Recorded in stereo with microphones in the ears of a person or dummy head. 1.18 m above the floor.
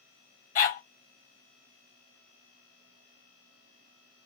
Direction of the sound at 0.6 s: 35° left (ahead or behind).